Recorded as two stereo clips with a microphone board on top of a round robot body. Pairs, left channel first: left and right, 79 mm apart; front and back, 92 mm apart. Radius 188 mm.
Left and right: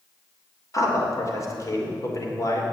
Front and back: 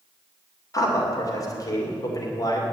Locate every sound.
0.7 s a man speaking: 45° left, 2.5 m